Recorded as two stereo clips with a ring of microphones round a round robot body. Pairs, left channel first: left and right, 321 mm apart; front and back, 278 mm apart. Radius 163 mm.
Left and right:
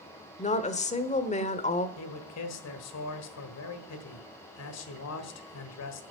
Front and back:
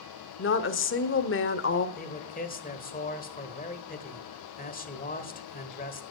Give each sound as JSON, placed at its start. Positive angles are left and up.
{"t": 0.4, "sound": "a woman speaking", "azimuth_deg": 25, "distance_m": 1.0}
{"t": 2.0, "sound": "a man speaking", "azimuth_deg": 55, "distance_m": 1.5}